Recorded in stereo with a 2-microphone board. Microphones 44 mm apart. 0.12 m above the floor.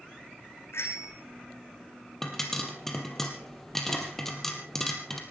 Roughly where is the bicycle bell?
Left.